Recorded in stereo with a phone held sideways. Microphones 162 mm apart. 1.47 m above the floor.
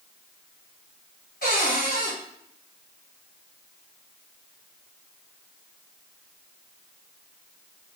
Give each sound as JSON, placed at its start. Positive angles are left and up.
{"t": 1.4, "sound": "a cupboard door", "side_deg": 65, "distance_m": 1.1}